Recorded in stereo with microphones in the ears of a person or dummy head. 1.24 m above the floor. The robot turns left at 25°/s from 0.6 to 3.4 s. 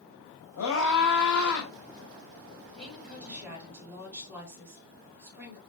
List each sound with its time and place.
0.6 s a scream: 85° left, 5.5 m; by 1.7 s 65° left (ahead or behind), 5.5 m
2.7 s a woman speaking: centre (ahead or behind), 8 m; by 5.6 s 15° right (ahead or behind), 8 m